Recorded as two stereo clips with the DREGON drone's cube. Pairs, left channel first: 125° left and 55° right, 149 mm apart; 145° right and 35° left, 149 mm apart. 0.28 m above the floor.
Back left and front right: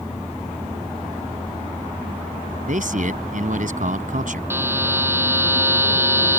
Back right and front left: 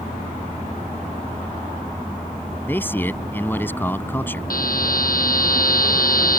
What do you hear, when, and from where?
2.7 s a man speaking: 70° right
4.5 s a buzzer: 130° right